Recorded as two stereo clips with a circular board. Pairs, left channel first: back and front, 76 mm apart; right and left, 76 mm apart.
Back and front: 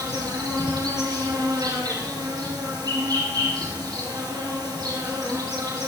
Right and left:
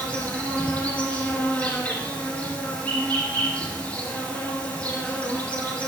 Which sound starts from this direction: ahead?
An insect, at 0.0 s.